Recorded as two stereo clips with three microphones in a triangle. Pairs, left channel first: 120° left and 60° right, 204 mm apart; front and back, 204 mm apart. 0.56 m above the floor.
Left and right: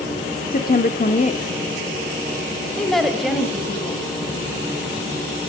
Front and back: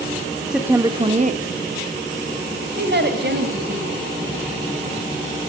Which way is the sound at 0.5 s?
95° left.